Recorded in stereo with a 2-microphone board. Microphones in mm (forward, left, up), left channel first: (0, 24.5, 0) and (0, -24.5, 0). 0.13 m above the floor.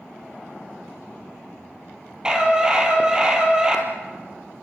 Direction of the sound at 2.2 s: 15° right (ahead or behind).